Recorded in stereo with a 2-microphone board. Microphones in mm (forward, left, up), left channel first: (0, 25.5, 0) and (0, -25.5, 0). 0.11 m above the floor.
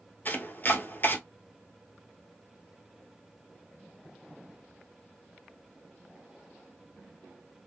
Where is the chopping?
35° left (ahead or behind), 1.4 m.